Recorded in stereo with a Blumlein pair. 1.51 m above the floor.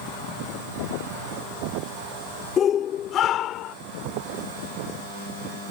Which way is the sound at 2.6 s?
25° left.